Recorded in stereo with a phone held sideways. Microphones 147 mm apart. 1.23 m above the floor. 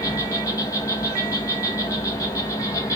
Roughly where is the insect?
Left.